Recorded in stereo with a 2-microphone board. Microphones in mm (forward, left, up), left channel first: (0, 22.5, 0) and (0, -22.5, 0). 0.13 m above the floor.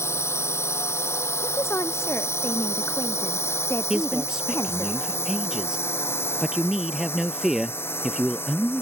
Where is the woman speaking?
70° left (ahead or behind).